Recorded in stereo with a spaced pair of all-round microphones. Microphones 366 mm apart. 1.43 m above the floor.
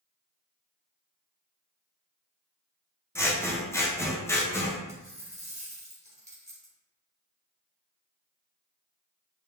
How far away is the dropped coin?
About 1.9 m.